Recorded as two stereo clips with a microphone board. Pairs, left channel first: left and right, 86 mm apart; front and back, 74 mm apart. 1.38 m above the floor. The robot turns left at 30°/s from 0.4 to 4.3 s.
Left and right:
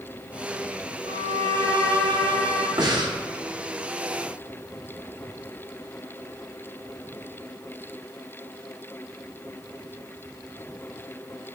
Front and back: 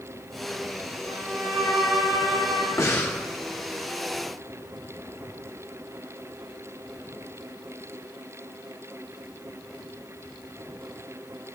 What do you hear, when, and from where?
1.1 s a violin: 80° right, 2.0 m; by 2.7 s 130° right, 2.0 m
2.8 s breathing: 50° right, 1.0 m; by 3.2 s 60° right, 1.0 m